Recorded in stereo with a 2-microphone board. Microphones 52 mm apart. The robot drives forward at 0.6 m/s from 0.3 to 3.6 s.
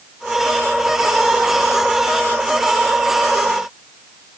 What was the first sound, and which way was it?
Only background noise.